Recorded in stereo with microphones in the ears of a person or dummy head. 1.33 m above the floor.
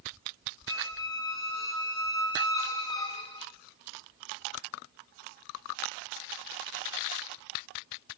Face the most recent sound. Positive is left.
turn(degrees=20)  # may be behind; listen again after turning